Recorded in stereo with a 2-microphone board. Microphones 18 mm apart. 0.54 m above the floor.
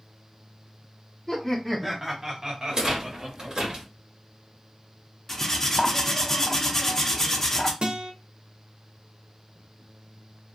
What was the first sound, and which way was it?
Laughter, 15° left (ahead or behind).